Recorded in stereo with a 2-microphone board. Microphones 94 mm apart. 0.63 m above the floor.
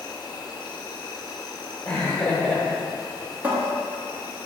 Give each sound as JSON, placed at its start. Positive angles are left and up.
{"t": 0.0, "sound": "an insect", "side_deg": 45, "distance_m": 1.2}
{"t": 1.9, "sound": "laughter", "side_deg": 10, "distance_m": 1.4}
{"t": 3.4, "sound": "a cupboard door", "side_deg": -20, "distance_m": 1.1}